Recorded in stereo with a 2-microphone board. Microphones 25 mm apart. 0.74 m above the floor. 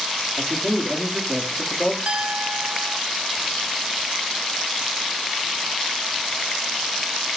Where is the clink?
70° right (ahead or behind), 0.9 m.